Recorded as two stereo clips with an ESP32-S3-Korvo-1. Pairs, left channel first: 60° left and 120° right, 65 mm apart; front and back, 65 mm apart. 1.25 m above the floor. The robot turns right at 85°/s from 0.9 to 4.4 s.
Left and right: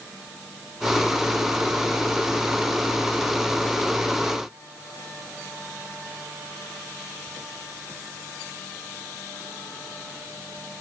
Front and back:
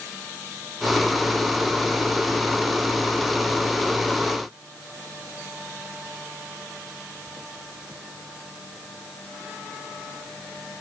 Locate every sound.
Only background noise.